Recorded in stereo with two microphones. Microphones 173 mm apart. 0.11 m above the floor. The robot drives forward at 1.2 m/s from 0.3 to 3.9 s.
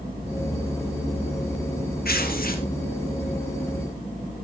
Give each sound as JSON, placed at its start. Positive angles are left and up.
{"t": 2.0, "sound": "tearing paper", "side_deg": 60, "distance_m": 2.0}